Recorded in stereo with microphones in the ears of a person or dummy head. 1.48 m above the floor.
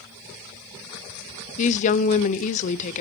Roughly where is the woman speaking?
Left.